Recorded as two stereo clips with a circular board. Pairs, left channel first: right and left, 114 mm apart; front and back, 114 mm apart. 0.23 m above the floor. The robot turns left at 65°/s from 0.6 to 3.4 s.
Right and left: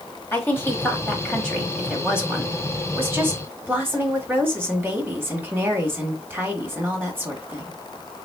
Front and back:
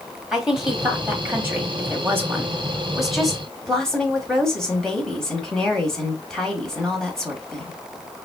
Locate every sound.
0.3 s a woman speaking: 105° right, 1.1 m; by 7.8 s 75° left, 1.1 m